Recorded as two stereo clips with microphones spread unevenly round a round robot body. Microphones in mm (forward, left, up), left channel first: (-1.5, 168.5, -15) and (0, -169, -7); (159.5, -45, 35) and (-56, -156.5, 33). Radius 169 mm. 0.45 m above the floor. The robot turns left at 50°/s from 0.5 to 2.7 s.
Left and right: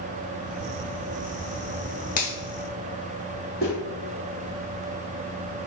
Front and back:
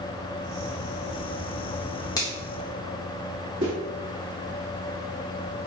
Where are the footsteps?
170° left, 1.7 m.